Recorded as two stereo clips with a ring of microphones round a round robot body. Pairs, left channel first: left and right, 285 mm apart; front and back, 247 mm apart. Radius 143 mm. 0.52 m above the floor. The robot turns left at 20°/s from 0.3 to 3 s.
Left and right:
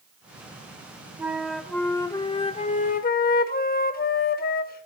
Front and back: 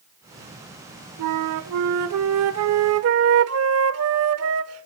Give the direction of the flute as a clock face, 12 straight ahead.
6 o'clock.